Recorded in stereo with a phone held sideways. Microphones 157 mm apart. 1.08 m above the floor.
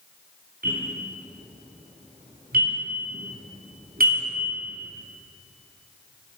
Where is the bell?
80° right, 4.5 m.